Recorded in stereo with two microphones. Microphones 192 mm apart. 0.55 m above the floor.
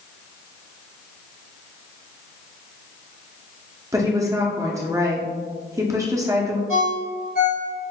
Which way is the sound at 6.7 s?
55° left (ahead or behind).